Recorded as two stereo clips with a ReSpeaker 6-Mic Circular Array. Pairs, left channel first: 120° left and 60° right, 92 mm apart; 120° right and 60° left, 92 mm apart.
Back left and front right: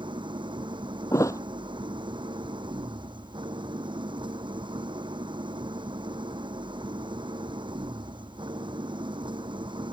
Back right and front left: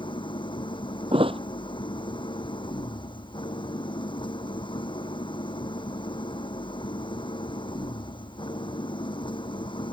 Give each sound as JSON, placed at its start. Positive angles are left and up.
{"t": 0.0, "sound": "an engine running", "azimuth_deg": -90}
{"t": 1.1, "sound": "a thud", "azimuth_deg": 65}